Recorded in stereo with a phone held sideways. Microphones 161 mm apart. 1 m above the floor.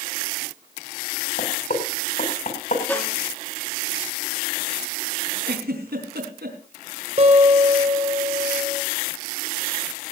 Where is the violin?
10° left (ahead or behind), 2.5 m.